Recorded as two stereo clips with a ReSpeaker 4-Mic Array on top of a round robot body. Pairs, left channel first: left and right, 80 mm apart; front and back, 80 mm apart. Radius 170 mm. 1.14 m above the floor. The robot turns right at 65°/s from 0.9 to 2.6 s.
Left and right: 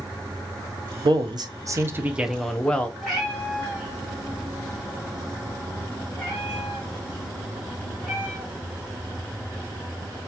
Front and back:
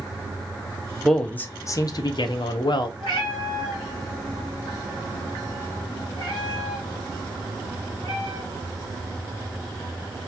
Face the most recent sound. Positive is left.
turn(degrees=-5)